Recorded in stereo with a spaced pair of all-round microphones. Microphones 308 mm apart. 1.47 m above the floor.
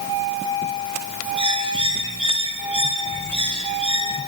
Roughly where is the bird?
Centre.